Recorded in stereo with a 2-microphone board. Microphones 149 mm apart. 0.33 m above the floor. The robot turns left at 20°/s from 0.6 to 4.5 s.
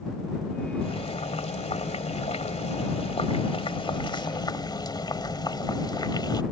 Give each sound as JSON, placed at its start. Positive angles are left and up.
{"t": 0.8, "sound": "boiling", "azimuth_deg": 115}